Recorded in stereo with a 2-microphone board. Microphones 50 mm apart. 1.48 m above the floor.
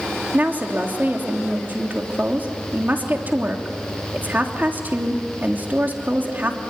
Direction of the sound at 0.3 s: 40° right (ahead or behind).